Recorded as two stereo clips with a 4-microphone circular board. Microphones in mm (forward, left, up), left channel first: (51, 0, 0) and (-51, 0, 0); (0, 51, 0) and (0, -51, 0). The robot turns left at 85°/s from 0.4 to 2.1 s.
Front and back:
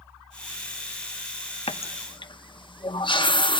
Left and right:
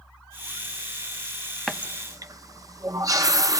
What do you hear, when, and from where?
1.7 s a running tap: straight ahead, 0.7 m; by 3.6 s 35° right, 0.7 m